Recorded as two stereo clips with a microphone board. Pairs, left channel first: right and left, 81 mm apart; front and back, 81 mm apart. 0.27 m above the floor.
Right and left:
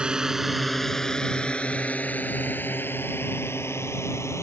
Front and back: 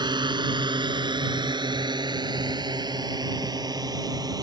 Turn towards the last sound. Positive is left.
turn(degrees=-140)